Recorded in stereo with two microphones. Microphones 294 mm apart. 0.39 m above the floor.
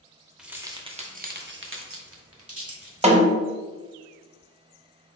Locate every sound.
0.4 s keys jangling: centre (ahead or behind), 0.7 m; by 3.2 s 50° right (ahead or behind), 1.3 m
3.0 s a snare drum: 20° right (ahead or behind), 0.6 m